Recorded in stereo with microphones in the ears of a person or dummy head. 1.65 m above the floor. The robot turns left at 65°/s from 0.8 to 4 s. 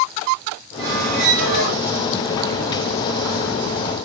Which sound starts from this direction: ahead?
A squeak, at 0.8 s.